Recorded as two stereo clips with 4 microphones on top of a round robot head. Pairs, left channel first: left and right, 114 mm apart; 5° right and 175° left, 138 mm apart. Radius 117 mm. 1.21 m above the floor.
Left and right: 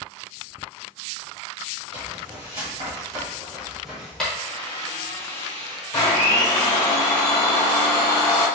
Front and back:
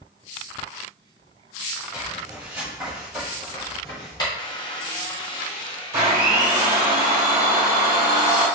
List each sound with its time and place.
1.9 s footsteps: 110° right, 1.7 m; by 4.3 s 15° left, 1.2 m
4.4 s a squeak: 50° left, 1.0 m
5.9 s a blender: 120° left, 0.7 m